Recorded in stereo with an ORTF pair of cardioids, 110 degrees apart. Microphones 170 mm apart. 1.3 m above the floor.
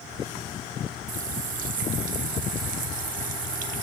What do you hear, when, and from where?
1.1 s a running tap: 50° right, 1.0 m